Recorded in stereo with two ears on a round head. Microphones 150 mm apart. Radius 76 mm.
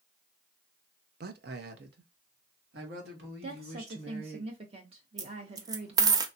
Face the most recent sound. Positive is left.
turn(degrees=-20)  # may be behind; listen again after turning